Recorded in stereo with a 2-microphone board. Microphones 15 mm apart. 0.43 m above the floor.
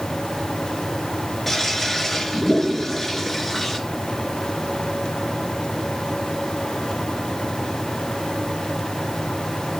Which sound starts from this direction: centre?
A toilet flushing, at 1.5 s.